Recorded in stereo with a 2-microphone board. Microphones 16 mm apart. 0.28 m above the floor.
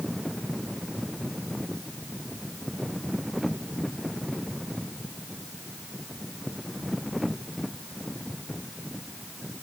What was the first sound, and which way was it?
Only background noise.